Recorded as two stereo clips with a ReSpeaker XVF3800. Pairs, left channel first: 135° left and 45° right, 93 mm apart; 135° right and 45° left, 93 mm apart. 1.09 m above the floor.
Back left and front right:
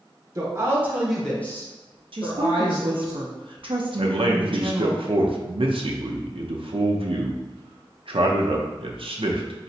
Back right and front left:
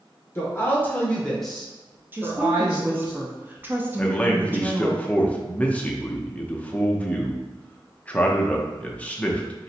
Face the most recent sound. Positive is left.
turn(degrees=-60)